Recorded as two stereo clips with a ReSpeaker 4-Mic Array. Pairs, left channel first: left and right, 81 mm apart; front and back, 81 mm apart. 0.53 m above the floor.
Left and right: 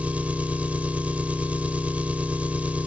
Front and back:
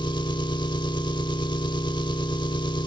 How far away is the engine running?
About 0.9 m.